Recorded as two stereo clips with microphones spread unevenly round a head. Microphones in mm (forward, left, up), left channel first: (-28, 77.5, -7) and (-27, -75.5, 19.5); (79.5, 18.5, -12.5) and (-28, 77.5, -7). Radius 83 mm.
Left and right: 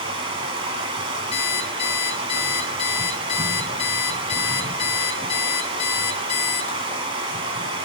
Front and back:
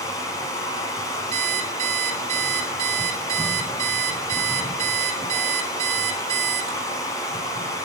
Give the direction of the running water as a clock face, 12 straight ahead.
3 o'clock.